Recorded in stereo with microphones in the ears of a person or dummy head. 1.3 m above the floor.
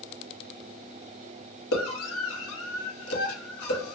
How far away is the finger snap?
I don't hear a finger snap.